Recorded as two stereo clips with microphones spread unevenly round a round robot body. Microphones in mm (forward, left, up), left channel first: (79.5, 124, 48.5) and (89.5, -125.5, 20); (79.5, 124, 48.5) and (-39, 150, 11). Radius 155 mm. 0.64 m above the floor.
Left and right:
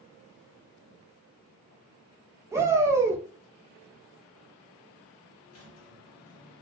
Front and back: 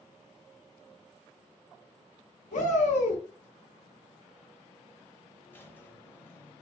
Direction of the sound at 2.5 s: 15° right.